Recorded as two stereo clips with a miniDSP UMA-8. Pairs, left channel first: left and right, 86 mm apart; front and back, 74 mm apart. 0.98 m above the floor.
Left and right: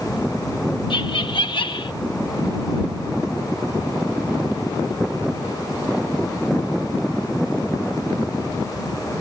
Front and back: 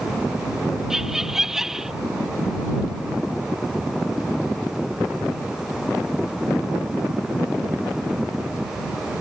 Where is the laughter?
95° left.